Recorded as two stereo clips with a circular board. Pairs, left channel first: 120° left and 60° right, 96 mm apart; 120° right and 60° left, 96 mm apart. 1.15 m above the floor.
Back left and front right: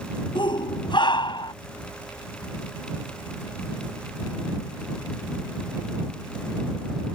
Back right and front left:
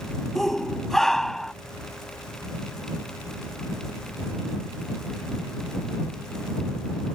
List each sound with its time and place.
0.3 s a shout: 155° left